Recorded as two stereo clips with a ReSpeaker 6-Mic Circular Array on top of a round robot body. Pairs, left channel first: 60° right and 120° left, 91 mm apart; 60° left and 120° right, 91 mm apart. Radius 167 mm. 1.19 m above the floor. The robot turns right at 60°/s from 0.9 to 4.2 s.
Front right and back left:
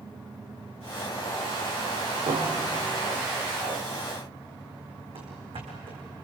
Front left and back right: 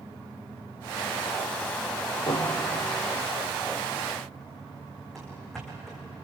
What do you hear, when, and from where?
2.3 s a piano: 100° left, 2 m; by 2.9 s 140° left, 2 m
5.2 s running footsteps: 145° left, 4.5 m